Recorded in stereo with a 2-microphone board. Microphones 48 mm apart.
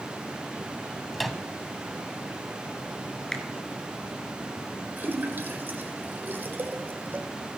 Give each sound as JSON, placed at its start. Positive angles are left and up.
{"t": 1.1, "sound": "a microwave", "side_deg": 0, "distance_m": 0.9}
{"t": 3.3, "sound": "a finger snap", "side_deg": 15, "distance_m": 2.0}
{"t": 5.0, "sound": "a splash", "side_deg": -40, "distance_m": 2.0}